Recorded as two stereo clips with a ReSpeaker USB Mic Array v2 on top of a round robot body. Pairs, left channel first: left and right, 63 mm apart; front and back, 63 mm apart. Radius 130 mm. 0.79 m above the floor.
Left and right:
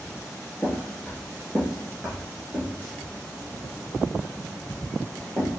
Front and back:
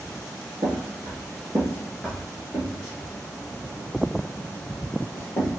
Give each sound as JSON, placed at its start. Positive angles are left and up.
{"t": 0.6, "sound": "footsteps", "azimuth_deg": 175, "distance_m": 1.0}